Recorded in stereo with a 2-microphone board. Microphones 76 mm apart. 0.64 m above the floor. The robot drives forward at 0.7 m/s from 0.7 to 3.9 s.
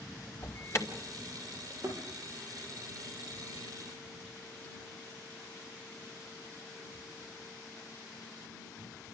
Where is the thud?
40° right (ahead or behind), 5 m.